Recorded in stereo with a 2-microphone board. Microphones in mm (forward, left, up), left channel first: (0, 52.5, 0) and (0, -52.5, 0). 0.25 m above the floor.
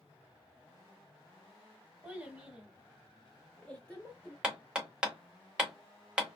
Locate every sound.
2.0 s a child speaking: 10° right (ahead or behind), 1.2 m; by 4.3 s 15° left (ahead or behind), 0.9 m
4.4 s hammering: 10° right (ahead or behind), 0.9 m